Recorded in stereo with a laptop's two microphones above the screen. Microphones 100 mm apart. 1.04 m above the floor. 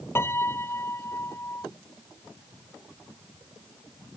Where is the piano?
25° left (ahead or behind).